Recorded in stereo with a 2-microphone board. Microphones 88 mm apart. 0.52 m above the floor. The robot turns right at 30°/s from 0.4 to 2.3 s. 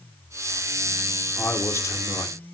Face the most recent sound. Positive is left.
turn(degrees=40)  # may be behind; listen again after turning